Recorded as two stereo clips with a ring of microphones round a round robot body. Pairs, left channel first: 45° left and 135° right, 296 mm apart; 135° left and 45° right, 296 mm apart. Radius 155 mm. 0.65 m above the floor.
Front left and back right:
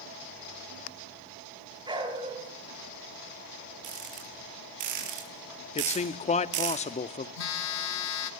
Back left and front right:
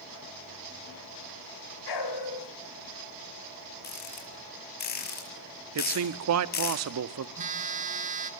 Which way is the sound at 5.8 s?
20° right.